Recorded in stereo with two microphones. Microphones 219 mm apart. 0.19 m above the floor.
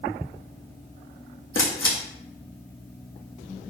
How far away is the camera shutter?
About 2.5 m.